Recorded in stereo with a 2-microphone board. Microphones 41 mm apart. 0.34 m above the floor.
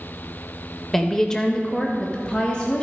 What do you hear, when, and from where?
0.9 s a woman speaking: 5° left (ahead or behind), 0.8 m; by 2.9 s 25° left (ahead or behind), 1.6 m